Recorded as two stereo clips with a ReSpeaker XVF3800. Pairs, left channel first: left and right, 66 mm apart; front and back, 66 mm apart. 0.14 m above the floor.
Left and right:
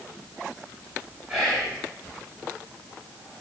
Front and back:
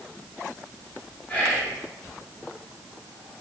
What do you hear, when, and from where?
1.3 s whispering: 10° right, 1.2 m